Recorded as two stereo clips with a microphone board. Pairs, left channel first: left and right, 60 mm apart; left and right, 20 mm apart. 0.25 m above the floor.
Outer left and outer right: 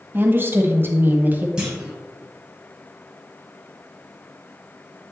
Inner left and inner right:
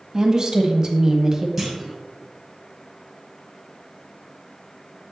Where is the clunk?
15° right (ahead or behind), 3 m.